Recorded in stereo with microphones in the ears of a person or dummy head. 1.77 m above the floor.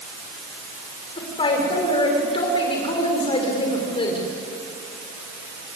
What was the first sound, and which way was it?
A woman speaking, 35° left (ahead or behind).